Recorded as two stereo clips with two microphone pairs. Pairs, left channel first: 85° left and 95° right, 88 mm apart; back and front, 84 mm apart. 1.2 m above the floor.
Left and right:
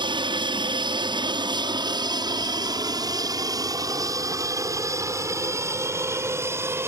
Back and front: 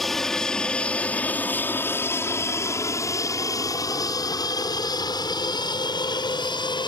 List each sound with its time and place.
0.0 s an aircraft: 95° right; by 6.9 s 160° right